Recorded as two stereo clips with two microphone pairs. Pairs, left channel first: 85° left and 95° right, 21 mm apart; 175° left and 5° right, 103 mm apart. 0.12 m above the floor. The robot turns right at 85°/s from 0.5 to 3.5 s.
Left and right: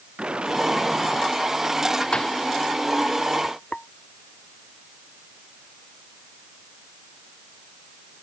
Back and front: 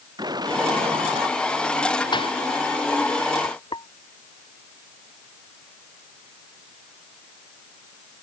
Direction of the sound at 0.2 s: 55° right.